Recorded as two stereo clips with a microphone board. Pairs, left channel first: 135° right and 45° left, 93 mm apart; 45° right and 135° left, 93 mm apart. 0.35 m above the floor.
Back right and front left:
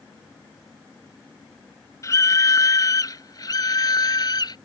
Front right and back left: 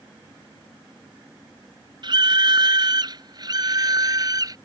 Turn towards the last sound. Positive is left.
turn(degrees=180)